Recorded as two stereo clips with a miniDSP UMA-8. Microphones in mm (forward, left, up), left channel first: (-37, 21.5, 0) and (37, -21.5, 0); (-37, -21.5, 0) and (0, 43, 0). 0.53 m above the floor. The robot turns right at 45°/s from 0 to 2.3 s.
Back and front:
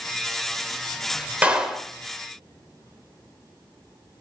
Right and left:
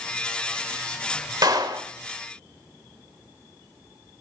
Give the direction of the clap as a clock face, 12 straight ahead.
11 o'clock.